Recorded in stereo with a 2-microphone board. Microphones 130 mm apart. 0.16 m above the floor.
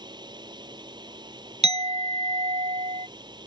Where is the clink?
60° right (ahead or behind).